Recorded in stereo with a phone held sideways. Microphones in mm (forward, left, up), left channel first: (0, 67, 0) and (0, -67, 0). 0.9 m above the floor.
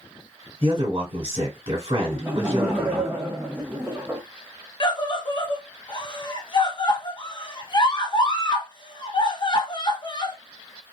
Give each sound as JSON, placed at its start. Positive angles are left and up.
{"t": 0.6, "sound": "a man speaking", "side_deg": -50, "distance_m": 1.5}
{"t": 2.1, "sound": "laughter", "side_deg": -15, "distance_m": 0.6}
{"t": 4.8, "sound": "a scream", "side_deg": 35, "distance_m": 0.7}